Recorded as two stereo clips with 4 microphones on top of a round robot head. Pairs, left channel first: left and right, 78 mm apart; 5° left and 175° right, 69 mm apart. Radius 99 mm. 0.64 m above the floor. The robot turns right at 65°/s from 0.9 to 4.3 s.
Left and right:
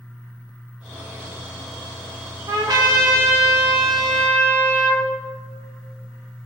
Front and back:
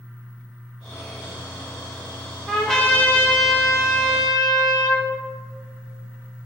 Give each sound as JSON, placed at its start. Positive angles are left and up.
{"t": 2.5, "sound": "a trumpet", "azimuth_deg": -90, "distance_m": 2.5}